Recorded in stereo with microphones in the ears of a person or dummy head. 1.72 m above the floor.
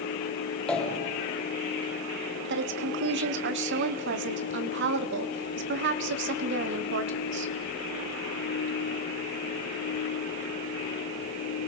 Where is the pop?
5° left (ahead or behind), 2.5 m.